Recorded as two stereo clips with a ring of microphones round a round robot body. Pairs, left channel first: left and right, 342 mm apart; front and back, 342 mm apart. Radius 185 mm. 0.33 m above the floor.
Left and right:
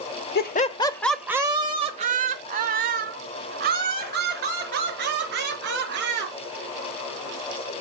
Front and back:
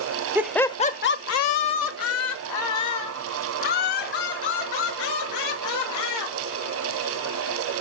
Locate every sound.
0.3 s laughter: 105° left, 0.9 m; by 6.3 s 30° right, 5.5 m